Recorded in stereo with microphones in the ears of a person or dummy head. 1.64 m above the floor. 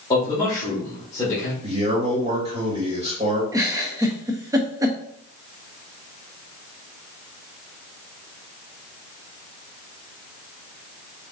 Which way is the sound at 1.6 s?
30° right (ahead or behind).